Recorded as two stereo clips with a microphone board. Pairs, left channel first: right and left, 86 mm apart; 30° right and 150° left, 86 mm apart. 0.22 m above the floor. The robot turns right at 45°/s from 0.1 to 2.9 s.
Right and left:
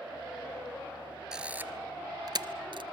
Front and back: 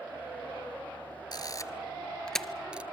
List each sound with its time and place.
1.3 s a camera shutter: 5° left, 0.9 m; by 2.8 s 75° left, 0.9 m